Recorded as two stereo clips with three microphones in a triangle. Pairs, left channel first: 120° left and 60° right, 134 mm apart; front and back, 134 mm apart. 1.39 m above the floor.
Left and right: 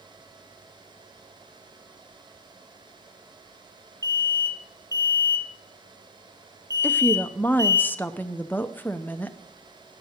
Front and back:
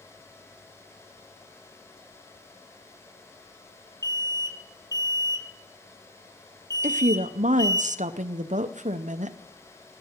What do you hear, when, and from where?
4.0 s an alarm: 60° left, 1.3 m
6.8 s a woman speaking: 165° right, 0.8 m